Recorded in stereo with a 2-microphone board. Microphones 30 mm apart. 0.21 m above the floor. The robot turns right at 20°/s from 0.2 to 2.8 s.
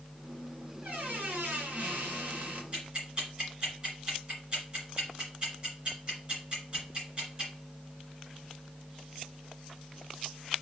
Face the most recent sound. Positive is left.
turn(degrees=-35)  # may be behind; listen again after turning